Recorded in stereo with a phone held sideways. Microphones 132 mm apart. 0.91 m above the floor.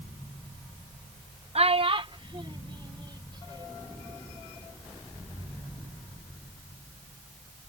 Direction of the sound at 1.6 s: 50° right (ahead or behind).